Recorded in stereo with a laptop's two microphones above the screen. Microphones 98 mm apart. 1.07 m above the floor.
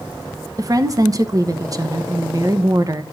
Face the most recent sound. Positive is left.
turn(degrees=-40)  # may be behind; listen again after turning